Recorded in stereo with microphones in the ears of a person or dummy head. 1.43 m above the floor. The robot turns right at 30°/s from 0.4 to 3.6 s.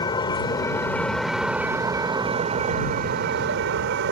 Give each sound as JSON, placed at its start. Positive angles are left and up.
{"t": 0.0, "sound": "a vehicle", "azimuth_deg": 150}